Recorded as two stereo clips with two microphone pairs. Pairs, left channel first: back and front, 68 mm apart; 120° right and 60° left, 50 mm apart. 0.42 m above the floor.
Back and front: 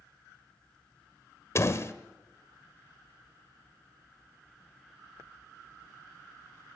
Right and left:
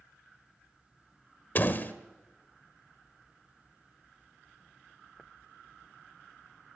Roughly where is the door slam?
Behind right.